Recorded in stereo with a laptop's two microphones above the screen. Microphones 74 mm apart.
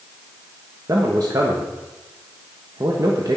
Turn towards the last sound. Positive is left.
turn(degrees=-55)  # may be behind; listen again after turning